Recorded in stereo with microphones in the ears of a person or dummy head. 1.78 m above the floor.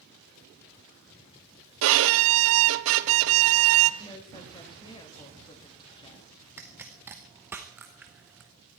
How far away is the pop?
About 1.0 m.